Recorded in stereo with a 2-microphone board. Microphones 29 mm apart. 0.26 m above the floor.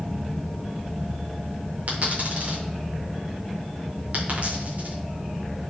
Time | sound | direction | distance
1.9 | a dropped coin | 55° right (ahead or behind) | 5 m